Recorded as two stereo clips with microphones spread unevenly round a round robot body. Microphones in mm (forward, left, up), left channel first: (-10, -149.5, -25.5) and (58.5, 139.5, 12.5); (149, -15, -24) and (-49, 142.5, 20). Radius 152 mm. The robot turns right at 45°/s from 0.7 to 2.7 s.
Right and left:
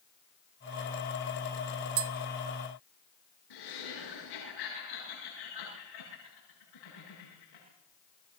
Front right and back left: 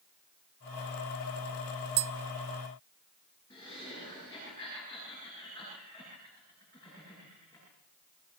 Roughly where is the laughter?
Behind right.